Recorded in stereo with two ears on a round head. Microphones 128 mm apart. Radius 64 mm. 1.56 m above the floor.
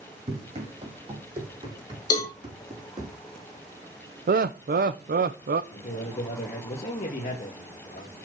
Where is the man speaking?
45° left (ahead or behind), 1.8 m.